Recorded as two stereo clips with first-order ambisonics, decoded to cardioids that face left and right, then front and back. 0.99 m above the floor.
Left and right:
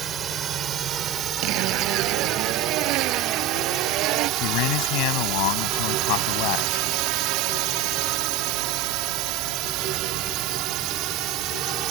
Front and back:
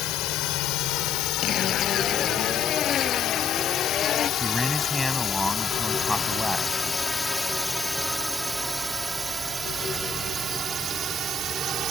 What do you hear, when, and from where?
0.0 s a drone: 30° right; by 11.9 s 125° right
1.4 s a zipper: 60° right
4.4 s a man speaking: 90° left